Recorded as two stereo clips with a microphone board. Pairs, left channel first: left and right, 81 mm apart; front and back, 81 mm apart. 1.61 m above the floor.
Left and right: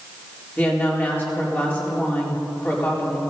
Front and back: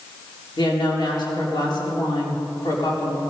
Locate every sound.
0.6 s a woman speaking: 25° left, 4 m